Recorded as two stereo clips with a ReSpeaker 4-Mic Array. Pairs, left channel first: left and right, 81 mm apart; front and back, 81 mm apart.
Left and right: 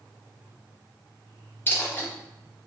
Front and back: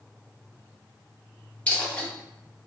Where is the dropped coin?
60° left, 0.8 m.